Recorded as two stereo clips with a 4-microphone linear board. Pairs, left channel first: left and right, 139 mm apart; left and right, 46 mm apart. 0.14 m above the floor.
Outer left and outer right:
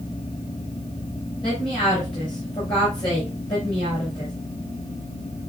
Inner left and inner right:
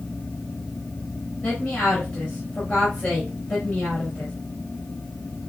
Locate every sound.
1.4 s a woman speaking: 40° left (ahead or behind), 3 m